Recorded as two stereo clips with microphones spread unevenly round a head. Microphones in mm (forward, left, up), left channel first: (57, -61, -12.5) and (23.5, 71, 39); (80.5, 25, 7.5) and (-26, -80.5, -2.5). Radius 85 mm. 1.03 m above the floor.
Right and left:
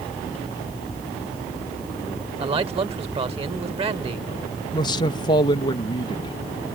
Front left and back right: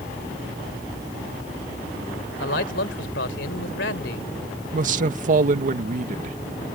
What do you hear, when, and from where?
2.4 s a man speaking: 55° left
4.7 s a man speaking: 115° right